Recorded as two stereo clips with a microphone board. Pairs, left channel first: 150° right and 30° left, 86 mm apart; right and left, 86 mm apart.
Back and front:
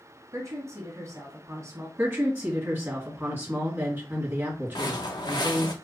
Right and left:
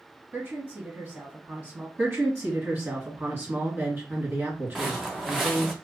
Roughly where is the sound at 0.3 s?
Ahead left.